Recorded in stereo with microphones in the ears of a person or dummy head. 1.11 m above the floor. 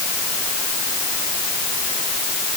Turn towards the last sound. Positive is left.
No sound to turn to.